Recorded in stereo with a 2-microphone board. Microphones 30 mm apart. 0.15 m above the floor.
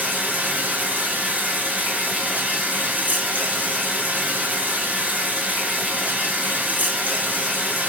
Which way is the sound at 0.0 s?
70° right (ahead or behind).